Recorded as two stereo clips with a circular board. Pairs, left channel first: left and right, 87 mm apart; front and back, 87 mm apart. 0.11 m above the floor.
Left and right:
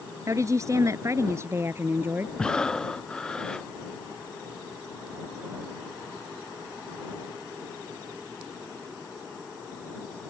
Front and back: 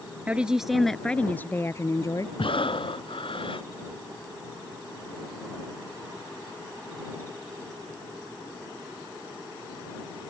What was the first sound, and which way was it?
A woman speaking, 115° right.